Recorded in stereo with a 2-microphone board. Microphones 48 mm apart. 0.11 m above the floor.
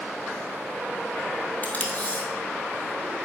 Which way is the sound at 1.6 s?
35° left (ahead or behind).